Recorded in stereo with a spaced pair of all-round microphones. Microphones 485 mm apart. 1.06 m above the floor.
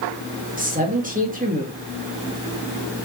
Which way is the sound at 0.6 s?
15° right (ahead or behind).